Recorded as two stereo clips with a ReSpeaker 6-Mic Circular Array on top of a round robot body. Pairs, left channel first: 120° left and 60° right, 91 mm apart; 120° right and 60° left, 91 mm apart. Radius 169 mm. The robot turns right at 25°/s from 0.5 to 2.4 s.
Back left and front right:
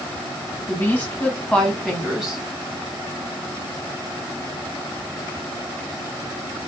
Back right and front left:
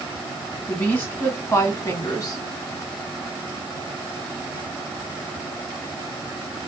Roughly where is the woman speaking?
Behind.